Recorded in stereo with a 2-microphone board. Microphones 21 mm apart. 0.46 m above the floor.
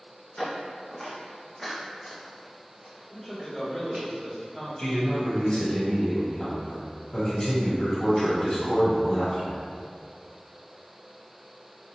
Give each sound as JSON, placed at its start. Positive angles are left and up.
{"t": 0.4, "sound": "footsteps", "side_deg": 20, "distance_m": 1.4}
{"t": 3.1, "sound": "a man speaking", "side_deg": 10, "distance_m": 1.5}
{"t": 4.8, "sound": "a man speaking", "side_deg": 30, "distance_m": 1.5}